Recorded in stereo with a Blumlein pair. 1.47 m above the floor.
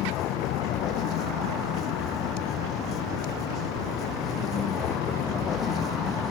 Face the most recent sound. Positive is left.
turn(degrees=20)